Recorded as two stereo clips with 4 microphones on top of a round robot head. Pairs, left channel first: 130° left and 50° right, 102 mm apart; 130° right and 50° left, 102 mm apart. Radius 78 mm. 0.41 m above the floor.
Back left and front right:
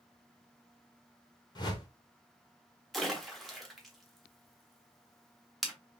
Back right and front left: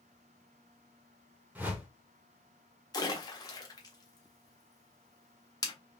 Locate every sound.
1.6 s a whoosh: 120° left, 1.3 m
2.9 s a splash: 145° right, 1.2 m